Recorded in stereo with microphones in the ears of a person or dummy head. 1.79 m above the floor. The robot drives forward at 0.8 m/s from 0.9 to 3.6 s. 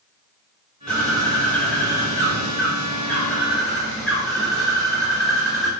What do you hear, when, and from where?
0.9 s a bird: 5° left (ahead or behind), 1.0 m